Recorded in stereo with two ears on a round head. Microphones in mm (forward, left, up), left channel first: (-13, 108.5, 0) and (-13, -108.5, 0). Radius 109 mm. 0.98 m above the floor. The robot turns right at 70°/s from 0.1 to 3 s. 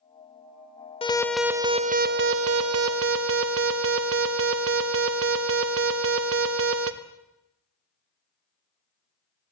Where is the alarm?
155° left, 1.2 m; by 6.9 s 65° right, 1.2 m.